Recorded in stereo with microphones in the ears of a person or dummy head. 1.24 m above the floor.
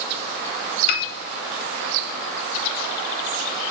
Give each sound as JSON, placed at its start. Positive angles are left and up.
{"t": 0.9, "sound": "a piano", "side_deg": 60, "distance_m": 0.8}